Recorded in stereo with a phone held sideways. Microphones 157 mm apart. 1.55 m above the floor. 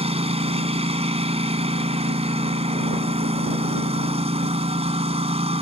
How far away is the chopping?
No chopping in this recording.